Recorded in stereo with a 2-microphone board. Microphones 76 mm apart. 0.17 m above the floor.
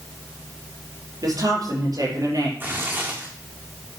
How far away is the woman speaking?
About 4.5 m.